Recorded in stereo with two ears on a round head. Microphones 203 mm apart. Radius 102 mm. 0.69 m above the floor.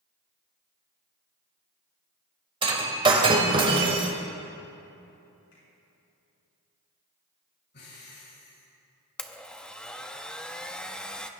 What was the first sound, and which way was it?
Breaking glass, 25° right (ahead or behind).